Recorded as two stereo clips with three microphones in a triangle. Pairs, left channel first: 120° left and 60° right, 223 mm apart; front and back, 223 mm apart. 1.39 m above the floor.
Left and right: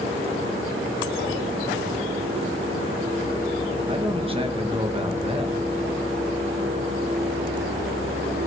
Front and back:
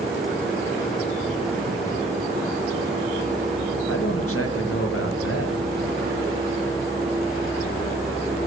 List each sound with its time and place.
3.9 s a man speaking: 5° left, 1.6 m